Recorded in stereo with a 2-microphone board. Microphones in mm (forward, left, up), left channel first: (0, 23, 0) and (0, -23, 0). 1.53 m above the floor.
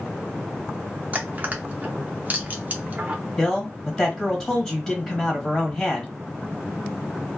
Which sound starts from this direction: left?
A man speaking, at 3.4 s.